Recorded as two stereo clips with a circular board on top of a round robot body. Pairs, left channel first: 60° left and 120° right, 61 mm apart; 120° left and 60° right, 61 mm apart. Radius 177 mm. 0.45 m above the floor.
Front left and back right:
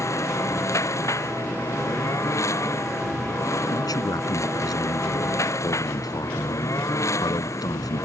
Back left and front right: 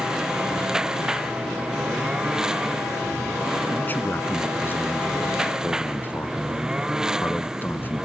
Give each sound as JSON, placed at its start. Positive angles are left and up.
{"t": 0.0, "sound": "a lawn mower", "azimuth_deg": 20}
{"t": 3.7, "sound": "a man speaking", "azimuth_deg": 60}